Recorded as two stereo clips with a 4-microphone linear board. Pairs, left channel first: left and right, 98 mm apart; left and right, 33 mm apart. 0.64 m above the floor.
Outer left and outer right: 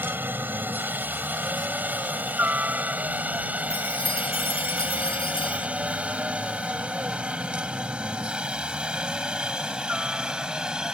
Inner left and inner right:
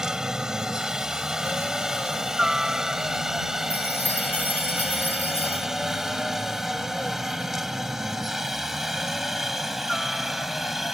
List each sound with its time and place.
0.0 s a helicopter: 20° right (ahead or behind); by 10.9 s 5° right (ahead or behind)
3.7 s a chime: 65° left (ahead or behind)